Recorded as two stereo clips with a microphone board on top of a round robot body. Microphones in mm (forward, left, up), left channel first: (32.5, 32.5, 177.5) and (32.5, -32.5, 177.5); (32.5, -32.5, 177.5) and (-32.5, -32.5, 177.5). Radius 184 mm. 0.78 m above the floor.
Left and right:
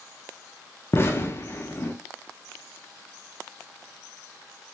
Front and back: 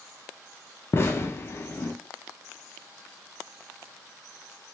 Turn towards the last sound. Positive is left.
turn(degrees=45)